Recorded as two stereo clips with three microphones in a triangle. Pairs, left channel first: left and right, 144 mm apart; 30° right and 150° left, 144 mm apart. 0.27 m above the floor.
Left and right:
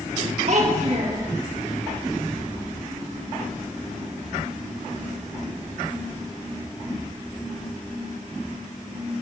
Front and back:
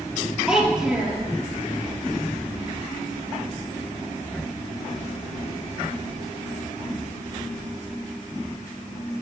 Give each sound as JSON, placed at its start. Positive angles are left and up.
{"t": 0.5, "sound": "a child speaking", "azimuth_deg": -125, "distance_m": 3.5}